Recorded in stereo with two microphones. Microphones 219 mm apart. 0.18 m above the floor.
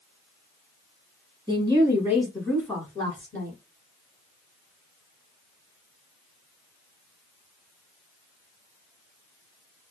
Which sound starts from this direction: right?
A woman speaking, at 1.5 s.